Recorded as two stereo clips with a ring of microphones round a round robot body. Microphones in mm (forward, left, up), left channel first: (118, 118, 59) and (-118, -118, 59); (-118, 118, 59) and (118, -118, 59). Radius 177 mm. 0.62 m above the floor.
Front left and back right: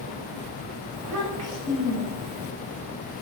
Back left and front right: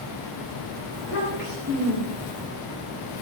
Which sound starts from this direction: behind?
A child speaking, at 0.9 s.